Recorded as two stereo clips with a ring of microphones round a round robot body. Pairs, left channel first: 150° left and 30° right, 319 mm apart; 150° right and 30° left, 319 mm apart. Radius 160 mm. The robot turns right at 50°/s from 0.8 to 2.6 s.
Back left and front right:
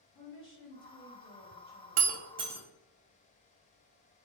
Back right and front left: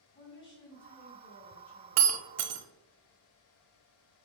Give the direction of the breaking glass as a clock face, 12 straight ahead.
11 o'clock.